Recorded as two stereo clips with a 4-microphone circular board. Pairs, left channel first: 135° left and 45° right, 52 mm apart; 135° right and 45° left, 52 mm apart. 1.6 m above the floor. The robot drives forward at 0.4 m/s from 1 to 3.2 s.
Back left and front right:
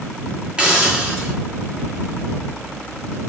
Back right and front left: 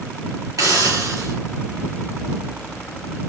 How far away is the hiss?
About 5 m.